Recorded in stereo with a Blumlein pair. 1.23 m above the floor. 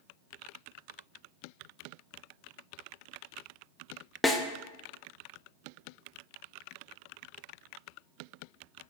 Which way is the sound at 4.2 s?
10° left.